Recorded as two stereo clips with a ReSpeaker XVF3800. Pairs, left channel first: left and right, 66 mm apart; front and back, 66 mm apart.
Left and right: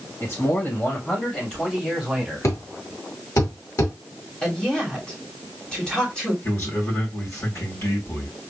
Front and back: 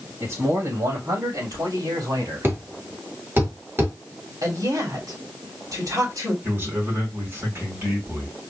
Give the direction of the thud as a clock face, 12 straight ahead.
8 o'clock.